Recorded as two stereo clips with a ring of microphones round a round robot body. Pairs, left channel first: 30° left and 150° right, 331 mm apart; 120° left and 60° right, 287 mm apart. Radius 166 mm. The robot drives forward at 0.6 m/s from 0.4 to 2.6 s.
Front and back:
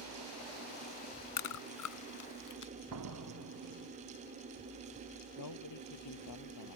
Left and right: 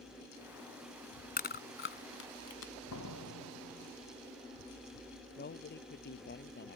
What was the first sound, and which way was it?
Chewing, 60° left.